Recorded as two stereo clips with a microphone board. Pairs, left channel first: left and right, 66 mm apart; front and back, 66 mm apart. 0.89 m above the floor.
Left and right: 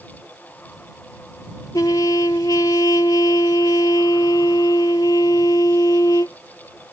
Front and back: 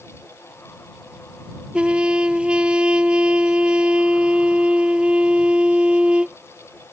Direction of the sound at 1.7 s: 110° left.